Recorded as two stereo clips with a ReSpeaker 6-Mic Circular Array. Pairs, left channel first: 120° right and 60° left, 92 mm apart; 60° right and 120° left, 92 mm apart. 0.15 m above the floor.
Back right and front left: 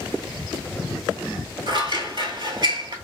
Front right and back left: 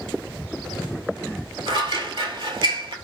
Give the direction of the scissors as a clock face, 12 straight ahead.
9 o'clock.